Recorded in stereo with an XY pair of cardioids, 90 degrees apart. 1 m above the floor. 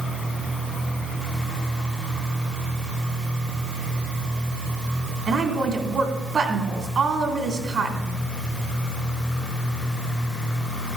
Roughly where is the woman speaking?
Ahead right.